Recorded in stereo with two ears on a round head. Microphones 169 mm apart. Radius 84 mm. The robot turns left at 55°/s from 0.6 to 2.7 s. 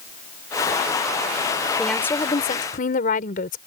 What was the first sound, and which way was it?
A woman speaking, 175° right.